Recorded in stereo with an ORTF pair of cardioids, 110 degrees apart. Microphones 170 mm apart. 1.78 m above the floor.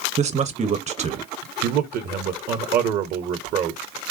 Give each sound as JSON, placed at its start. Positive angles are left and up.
{"t": 0.2, "sound": "a man speaking", "azimuth_deg": -40, "distance_m": 1.2}
{"t": 1.6, "sound": "a man speaking", "azimuth_deg": -55, "distance_m": 1.0}